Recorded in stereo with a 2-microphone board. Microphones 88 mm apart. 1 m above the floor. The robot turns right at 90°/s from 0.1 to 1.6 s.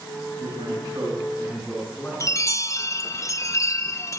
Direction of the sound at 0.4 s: 90° right.